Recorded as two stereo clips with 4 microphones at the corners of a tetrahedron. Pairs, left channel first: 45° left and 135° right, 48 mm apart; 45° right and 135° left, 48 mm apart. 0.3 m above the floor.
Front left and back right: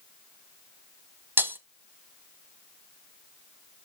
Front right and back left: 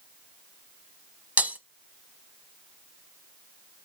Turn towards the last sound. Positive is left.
turn(degrees=-170)